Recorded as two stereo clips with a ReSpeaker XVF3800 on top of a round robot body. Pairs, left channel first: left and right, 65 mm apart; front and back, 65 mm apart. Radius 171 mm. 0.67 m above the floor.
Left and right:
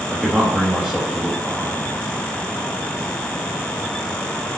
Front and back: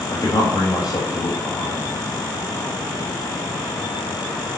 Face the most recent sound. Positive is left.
turn(degrees=-5)